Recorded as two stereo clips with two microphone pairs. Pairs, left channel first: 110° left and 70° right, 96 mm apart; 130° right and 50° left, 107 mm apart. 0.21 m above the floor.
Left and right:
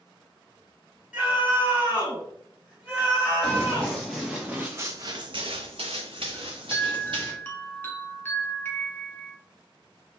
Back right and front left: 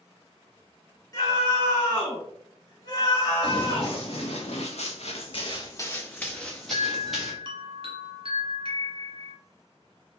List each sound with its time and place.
1.1 s a scream: 140° right, 2.0 m
3.4 s running footsteps: 170° right, 1.3 m; by 7.3 s 35° right, 1.5 m
6.3 s a chime: 40° left, 0.8 m